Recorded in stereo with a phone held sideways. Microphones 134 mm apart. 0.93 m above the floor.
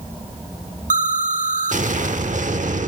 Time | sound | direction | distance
0.9 | an explosion | 70° right (ahead or behind) | 1.0 m